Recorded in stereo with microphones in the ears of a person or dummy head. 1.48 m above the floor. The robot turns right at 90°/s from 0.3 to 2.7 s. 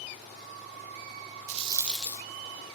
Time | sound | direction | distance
1.5 | a rattle | 40° right | 1.3 m